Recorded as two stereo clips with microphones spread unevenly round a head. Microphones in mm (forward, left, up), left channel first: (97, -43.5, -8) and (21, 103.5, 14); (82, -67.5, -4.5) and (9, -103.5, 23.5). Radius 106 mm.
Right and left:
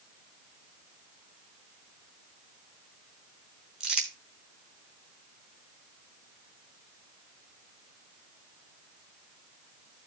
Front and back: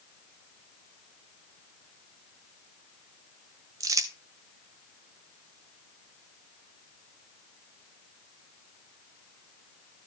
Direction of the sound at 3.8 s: 165° right.